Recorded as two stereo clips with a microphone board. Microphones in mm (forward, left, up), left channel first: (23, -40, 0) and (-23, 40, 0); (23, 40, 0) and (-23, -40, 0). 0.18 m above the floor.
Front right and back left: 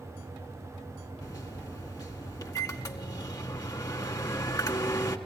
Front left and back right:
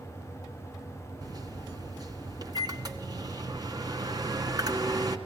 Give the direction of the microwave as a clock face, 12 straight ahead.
3 o'clock.